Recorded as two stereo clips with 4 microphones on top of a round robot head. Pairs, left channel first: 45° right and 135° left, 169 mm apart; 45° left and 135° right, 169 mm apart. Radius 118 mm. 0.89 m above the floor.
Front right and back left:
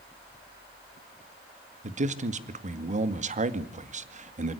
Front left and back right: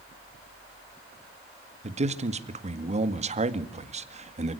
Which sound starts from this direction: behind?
A man speaking, at 1.8 s.